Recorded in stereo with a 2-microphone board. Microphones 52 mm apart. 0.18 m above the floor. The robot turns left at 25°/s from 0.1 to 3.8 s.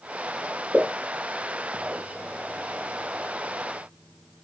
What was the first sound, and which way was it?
A pop, 30° right (ahead or behind).